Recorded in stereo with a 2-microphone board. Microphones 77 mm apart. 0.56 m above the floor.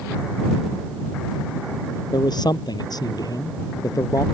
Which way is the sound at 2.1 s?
65° left (ahead or behind).